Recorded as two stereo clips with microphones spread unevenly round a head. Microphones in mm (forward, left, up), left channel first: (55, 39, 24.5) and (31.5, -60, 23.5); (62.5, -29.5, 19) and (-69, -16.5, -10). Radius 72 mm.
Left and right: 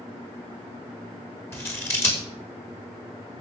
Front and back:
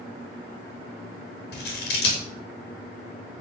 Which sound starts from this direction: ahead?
Scissors, at 1.5 s.